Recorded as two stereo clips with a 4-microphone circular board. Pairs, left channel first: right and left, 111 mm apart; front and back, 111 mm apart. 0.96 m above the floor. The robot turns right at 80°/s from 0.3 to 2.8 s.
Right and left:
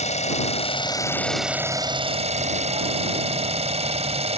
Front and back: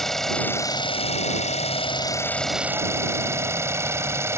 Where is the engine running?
85° right; by 4.4 s 115° left.